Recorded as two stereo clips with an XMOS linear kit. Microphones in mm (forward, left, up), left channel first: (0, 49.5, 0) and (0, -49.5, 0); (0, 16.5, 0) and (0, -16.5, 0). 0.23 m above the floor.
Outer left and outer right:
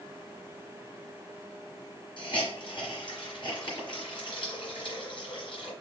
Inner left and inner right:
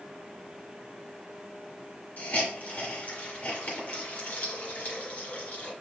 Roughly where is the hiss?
Left.